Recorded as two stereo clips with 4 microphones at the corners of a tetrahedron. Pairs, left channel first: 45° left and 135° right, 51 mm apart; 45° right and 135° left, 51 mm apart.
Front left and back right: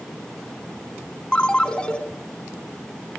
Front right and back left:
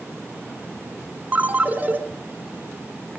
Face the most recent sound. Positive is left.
turn(degrees=105)